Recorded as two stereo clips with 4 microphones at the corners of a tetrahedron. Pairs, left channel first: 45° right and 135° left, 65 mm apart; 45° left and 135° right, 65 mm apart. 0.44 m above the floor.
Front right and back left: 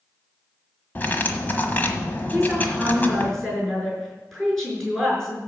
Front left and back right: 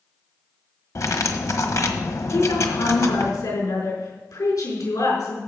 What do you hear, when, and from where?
0.9 s cutlery clinking: 15° left, 1.3 m
2.3 s a woman speaking: 45° left, 5 m